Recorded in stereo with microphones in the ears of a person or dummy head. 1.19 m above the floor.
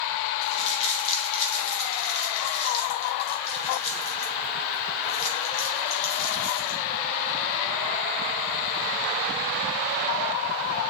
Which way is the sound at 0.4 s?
35° left (ahead or behind).